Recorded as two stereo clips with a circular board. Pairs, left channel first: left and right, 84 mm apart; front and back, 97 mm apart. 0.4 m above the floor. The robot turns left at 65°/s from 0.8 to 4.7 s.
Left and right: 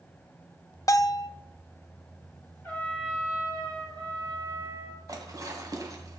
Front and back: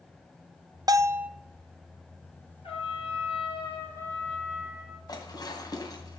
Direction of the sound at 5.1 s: 45° right.